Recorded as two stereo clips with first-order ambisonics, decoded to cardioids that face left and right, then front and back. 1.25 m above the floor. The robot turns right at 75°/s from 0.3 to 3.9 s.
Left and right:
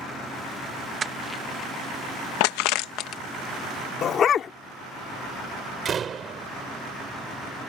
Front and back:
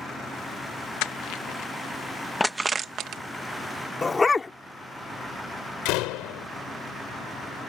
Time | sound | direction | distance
1.0 | crushing | 20° right | ?
4.0 | a dog barking | 65° left | ?
5.8 | a door slam | 25° right | ?